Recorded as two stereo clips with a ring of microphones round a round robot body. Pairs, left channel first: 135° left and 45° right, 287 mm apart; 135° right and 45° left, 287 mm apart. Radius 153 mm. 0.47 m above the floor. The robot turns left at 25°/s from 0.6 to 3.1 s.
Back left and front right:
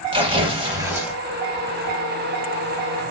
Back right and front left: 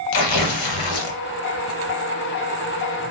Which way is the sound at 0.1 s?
120° right.